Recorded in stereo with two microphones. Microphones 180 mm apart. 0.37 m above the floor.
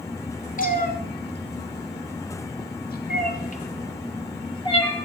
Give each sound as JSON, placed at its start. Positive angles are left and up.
{"t": 0.6, "sound": "a cat meowing", "side_deg": 50, "distance_m": 1.5}